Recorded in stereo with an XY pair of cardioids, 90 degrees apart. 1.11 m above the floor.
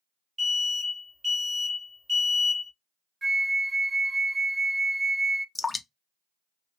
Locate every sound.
0.4 s an alarm: 35° right, 1.6 m
3.2 s a flute: 30° right, 0.5 m
5.5 s dripping: 25° left, 0.7 m